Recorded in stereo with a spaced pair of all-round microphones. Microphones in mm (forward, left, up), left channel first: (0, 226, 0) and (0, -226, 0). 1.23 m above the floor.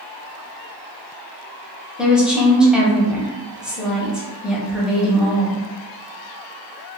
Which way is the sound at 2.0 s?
Centre (ahead or behind).